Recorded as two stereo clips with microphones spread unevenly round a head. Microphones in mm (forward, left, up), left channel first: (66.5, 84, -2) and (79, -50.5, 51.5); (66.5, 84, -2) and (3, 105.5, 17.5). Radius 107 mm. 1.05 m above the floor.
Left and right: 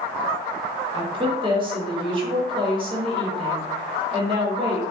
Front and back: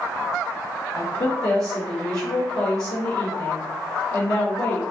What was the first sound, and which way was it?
A woman speaking, 25° right.